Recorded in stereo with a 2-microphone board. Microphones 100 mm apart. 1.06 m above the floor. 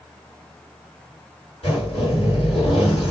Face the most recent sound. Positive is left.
turn(degrees=70)  # may be behind; listen again after turning